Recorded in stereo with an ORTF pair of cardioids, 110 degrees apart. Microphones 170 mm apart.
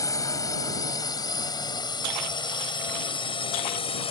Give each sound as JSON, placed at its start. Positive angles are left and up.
{"t": 0.0, "sound": "a drone", "azimuth_deg": 20}